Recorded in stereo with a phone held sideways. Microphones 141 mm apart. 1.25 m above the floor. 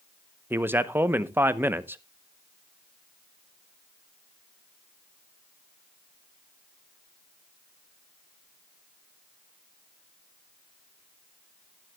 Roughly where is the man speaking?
Centre.